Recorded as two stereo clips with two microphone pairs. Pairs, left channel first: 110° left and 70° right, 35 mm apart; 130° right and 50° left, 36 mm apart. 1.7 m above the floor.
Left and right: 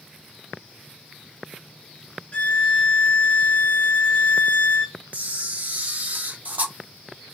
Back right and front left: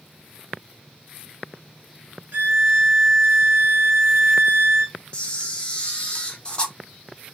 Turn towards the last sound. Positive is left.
turn(degrees=-80)